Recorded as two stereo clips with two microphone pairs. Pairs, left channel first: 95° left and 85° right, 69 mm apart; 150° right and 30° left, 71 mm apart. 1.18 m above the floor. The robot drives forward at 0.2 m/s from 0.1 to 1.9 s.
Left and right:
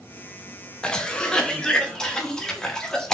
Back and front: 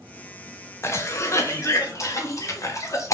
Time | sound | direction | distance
0.8 | a cough | 170° left | 0.6 m